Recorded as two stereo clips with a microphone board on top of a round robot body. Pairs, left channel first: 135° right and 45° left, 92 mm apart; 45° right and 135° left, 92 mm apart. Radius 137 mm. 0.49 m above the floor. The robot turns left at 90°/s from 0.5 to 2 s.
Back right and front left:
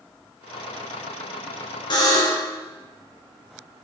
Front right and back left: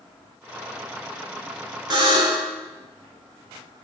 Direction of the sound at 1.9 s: 175° right.